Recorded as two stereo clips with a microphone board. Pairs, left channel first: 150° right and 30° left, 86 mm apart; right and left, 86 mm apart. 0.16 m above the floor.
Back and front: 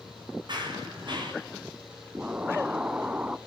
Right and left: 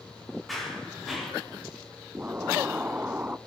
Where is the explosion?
70° left, 0.7 m.